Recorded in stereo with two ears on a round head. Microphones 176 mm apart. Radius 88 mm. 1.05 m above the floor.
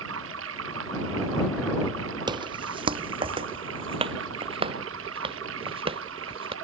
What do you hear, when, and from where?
0.0 s running water: 70° right (ahead or behind)
2.3 s footsteps: 25° right (ahead or behind); by 6.5 s 30° right (ahead or behind)